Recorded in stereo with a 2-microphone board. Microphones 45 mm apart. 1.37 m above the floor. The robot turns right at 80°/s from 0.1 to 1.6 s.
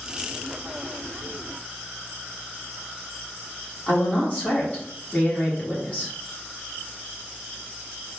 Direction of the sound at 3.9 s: 35° left (ahead or behind).